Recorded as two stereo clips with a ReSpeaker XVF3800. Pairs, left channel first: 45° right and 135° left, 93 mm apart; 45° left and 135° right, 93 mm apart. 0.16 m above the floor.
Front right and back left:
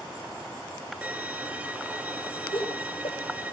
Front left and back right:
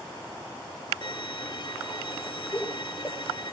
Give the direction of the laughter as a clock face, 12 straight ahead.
1 o'clock.